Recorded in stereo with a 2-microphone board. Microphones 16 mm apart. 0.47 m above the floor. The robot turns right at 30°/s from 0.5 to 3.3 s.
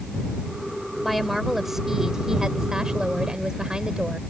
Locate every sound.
1.0 s a woman speaking: 175° right; by 4.2 s 105° right